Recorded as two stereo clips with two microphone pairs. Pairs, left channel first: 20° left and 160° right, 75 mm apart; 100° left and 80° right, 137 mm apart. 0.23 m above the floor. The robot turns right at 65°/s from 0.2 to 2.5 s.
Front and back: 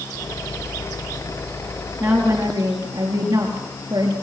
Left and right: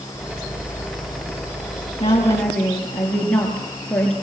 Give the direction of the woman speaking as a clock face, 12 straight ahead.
7 o'clock.